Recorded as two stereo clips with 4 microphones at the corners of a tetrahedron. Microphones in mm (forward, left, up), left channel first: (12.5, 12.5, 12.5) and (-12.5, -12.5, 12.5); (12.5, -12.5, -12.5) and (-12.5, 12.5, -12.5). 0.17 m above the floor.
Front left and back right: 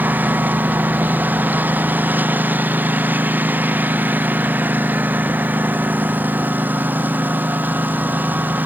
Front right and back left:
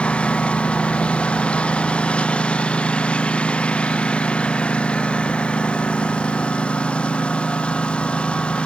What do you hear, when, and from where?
0.0 s a lawn mower: 105° right